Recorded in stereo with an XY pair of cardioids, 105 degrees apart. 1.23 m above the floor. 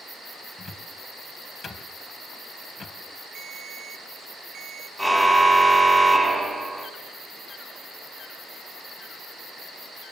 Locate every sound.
0.6 s a cupboard door: 35° left, 3 m
3.4 s a ringtone: 55° right, 1.3 m
5.0 s a car horn: 10° right, 3.5 m